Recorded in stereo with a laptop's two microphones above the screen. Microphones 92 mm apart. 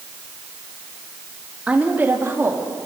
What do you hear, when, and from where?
1.7 s a woman speaking: 15° right (ahead or behind), 1.8 m; by 2.9 s 35° right (ahead or behind), 2.5 m